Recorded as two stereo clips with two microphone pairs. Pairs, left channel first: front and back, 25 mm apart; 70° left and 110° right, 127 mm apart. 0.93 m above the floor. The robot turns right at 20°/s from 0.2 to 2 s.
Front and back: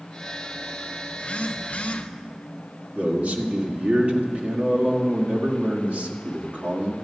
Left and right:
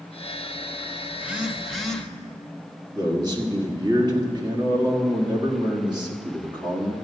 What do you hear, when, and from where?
1.1 s a phone buzzing: 35° right, 0.8 m; by 2.1 s 15° right, 0.8 m
2.9 s a man speaking: 170° right, 1.7 m